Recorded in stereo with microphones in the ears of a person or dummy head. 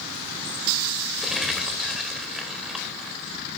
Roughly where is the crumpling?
Centre.